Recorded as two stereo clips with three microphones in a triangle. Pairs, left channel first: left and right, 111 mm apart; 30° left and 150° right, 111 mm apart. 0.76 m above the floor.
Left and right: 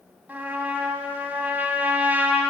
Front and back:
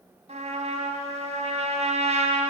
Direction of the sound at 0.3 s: 165° right.